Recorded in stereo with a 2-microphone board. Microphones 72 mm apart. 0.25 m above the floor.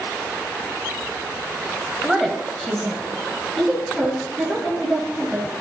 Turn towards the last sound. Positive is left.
turn(degrees=10)  # may be behind; listen again after turning